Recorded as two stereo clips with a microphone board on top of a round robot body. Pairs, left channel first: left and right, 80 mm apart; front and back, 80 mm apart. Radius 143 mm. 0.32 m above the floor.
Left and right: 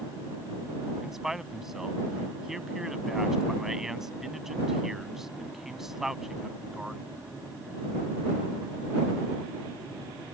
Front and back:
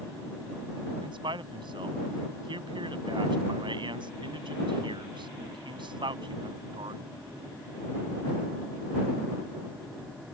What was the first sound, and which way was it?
A man speaking, 175° right.